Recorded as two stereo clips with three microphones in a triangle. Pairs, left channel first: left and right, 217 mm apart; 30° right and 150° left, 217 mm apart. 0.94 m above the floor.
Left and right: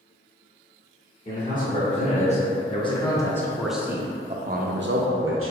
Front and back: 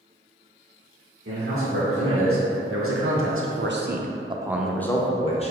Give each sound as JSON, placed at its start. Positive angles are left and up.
{"t": 1.2, "sound": "a man speaking", "azimuth_deg": 140, "distance_m": 1.6}